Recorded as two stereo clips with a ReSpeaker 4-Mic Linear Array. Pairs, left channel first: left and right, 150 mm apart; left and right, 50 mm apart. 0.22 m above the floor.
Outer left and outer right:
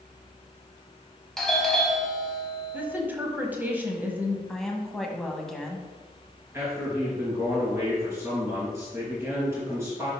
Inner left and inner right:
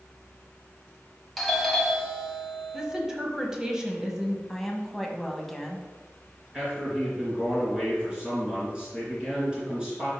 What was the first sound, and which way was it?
A doorbell, centre (ahead or behind).